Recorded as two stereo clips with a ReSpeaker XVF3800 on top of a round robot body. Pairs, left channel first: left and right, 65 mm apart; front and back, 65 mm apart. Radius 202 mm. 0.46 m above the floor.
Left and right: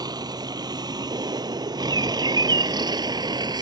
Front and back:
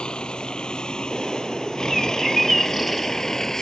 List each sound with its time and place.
0.0 s a vehicle: 75° right; by 3.6 s 85° right
1.1 s a bird: 90° right